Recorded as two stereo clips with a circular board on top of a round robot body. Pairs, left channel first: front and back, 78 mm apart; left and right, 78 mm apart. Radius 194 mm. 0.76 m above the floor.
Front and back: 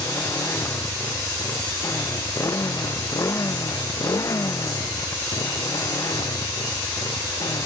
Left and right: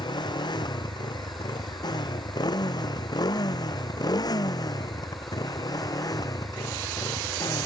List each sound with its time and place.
0.0 s a motorcycle: 60° left; by 7.7 s 45° left